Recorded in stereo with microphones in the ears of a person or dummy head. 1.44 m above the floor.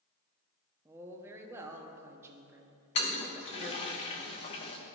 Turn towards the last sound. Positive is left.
turn(degrees=35)  # may be behind; listen again after turning